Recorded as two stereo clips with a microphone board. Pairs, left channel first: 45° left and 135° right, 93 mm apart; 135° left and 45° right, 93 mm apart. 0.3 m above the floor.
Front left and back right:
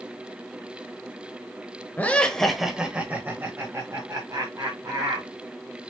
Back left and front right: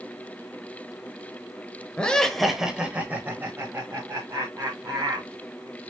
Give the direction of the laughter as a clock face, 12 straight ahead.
9 o'clock.